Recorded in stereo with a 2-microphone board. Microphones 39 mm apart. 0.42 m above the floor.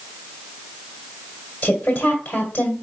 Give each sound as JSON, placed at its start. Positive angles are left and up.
{"t": 1.6, "sound": "a woman speaking", "side_deg": 40, "distance_m": 1.7}